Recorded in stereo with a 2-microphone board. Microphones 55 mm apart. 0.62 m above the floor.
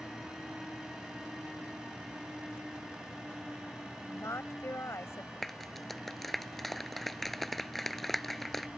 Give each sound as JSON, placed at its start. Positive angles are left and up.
{"t": 4.1, "sound": "a woman speaking", "side_deg": 60}
{"t": 5.4, "sound": "a clap", "side_deg": 5}